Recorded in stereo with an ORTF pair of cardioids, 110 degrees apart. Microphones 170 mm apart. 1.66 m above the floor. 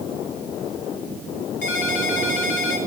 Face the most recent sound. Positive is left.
turn(degrees=65)